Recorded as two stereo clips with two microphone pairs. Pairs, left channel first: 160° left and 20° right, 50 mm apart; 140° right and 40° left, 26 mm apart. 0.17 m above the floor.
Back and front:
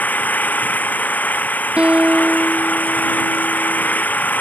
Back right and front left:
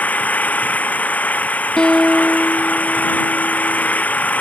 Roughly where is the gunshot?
No gunshot in this recording.